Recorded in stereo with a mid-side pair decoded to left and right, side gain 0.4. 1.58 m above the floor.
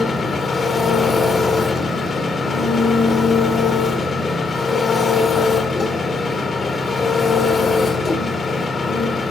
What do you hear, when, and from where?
0.0 s an engine running: 50° left, 1.7 m